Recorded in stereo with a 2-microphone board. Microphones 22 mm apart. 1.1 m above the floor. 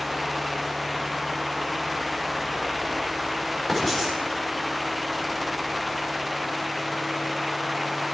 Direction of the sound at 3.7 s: 10° left (ahead or behind).